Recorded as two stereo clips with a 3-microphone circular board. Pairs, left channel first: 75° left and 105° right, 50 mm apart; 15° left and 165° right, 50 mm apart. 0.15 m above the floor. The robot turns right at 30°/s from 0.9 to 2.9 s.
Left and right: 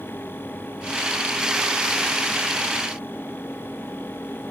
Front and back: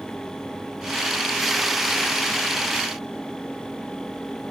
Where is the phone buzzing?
No phone buzzing in this recording.